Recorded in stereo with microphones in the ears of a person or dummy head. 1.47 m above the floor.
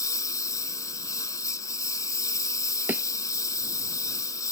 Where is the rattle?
I don't hear a rattle.